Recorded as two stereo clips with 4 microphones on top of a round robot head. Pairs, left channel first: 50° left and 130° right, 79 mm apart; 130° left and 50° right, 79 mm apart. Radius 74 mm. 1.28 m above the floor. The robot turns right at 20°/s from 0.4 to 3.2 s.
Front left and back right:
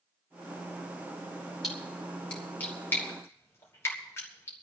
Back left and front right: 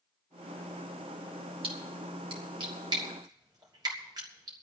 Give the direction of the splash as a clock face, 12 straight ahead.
1 o'clock.